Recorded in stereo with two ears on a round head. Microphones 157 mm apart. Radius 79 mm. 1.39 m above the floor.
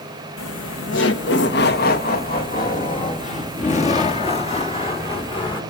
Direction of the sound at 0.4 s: 80° left.